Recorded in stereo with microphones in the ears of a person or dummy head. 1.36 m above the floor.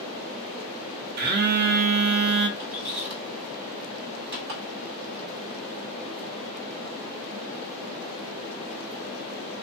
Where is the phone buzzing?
55° right (ahead or behind), 0.6 m.